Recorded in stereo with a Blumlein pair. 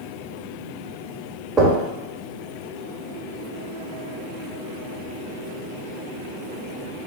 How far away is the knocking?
About 0.9 m.